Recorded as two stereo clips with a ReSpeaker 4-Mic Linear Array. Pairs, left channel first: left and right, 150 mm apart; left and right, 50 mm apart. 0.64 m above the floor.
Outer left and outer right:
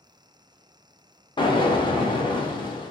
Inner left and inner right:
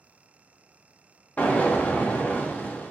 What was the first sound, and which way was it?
An explosion, 30° left (ahead or behind).